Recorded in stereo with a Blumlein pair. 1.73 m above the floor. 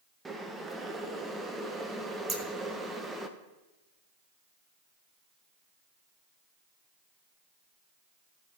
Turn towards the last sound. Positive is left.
turn(degrees=-20)